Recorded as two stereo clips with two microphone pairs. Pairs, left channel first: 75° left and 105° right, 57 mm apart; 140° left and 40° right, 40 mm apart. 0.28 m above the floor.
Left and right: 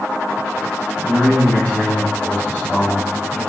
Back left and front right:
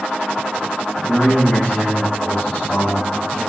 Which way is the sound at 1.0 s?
110° left.